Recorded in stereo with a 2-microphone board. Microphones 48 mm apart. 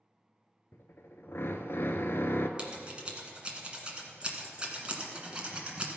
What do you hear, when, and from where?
0.7 s a drill: 60° left (ahead or behind), 0.7 m
2.6 s scissors: 20° right (ahead or behind), 1.7 m